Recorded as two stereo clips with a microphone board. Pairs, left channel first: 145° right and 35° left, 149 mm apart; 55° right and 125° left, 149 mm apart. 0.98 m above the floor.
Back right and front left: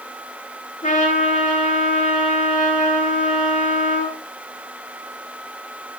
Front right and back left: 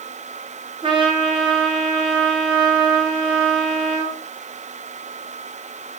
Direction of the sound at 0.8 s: Straight behind.